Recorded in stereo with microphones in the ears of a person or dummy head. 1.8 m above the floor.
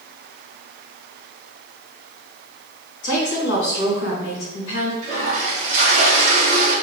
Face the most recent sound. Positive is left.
turn(degrees=-50)  # may be behind; listen again after turning